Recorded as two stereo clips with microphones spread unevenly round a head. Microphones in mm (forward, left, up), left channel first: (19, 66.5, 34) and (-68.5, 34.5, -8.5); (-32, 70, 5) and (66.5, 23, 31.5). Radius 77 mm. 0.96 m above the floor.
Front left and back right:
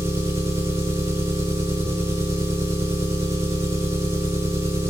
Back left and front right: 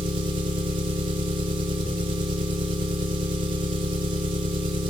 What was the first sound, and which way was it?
An engine running, 75° right.